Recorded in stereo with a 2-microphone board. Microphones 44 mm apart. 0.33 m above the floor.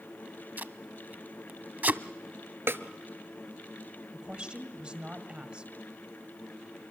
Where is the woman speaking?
25° right (ahead or behind), 2 m.